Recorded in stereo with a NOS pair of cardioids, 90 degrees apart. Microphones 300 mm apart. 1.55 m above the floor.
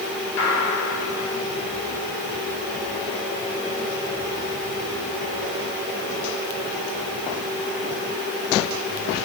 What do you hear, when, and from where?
0.4 s a gunshot: 65° left, 3 m